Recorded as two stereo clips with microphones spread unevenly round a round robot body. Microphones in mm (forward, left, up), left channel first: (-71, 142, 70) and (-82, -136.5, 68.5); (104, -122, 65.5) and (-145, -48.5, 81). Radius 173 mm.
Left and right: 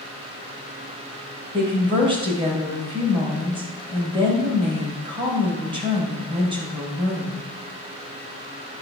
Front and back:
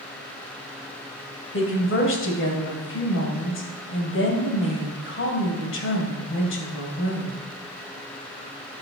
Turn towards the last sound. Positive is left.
turn(degrees=-25)